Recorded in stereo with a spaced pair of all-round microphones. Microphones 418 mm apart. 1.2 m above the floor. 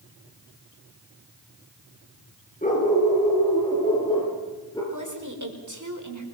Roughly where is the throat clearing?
No throat clearing in this recording.